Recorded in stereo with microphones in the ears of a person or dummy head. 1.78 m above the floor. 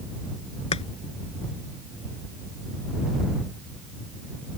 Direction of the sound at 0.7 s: 35° left (ahead or behind).